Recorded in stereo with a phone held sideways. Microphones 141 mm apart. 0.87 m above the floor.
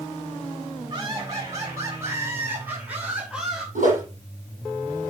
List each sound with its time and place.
0.9 s laughter: 30° right (ahead or behind), 6.5 m; by 3.6 s 5° right (ahead or behind), 5.5 m
3.8 s a whoosh: 70° right (ahead or behind), 6.5 m